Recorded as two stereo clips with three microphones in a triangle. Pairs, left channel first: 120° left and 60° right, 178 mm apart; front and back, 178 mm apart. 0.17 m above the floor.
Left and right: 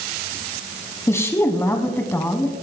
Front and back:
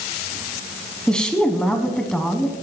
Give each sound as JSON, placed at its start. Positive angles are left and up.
{"t": 1.1, "sound": "a woman speaking", "azimuth_deg": 75, "distance_m": 1.1}